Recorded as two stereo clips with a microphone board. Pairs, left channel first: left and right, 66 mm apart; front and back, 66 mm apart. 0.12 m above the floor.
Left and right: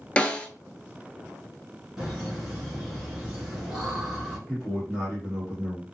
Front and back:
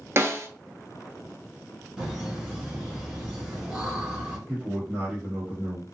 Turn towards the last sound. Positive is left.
turn(degrees=-160)